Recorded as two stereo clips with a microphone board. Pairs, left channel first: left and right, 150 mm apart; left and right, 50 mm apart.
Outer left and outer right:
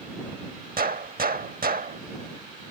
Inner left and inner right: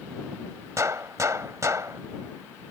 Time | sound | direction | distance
0.8 | a gunshot | 75° right (ahead or behind) | ?